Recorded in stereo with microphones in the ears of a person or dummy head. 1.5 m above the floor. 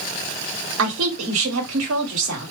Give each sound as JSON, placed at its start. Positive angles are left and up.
{"t": 0.8, "sound": "a woman speaking", "side_deg": -70, "distance_m": 1.6}